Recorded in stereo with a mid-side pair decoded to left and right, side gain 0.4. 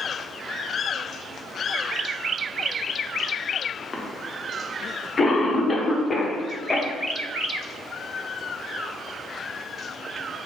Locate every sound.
3.9 s a cough: 35° left, 1.0 m